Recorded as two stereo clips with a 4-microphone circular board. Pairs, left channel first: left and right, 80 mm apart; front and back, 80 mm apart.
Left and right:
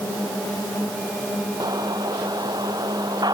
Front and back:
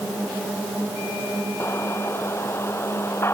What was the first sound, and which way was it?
An explosion, 55° right.